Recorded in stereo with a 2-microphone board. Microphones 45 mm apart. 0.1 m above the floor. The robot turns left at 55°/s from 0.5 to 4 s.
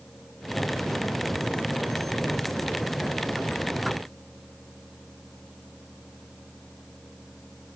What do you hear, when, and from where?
Only background noise.